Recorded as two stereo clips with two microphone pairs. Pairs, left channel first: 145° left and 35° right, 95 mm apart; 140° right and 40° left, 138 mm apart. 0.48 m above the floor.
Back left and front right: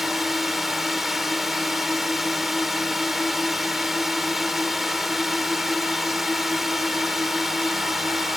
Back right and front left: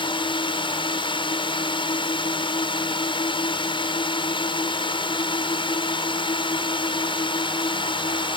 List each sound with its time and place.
0.0 s a drone: 120° right